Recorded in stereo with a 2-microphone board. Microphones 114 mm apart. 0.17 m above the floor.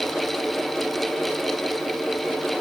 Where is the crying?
No crying in this recording.